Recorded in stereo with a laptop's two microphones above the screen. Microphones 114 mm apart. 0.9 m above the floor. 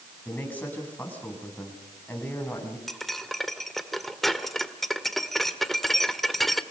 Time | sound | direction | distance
0.2 | a man speaking | 15° left (ahead or behind) | 8.5 m
2.9 | cutlery clinking | centre (ahead or behind) | 1.6 m